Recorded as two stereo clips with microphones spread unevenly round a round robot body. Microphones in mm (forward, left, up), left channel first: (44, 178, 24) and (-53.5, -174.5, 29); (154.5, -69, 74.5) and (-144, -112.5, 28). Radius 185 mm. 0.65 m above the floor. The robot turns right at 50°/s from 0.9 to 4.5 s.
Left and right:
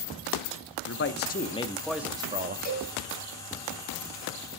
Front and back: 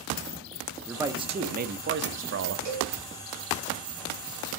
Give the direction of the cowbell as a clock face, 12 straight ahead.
7 o'clock.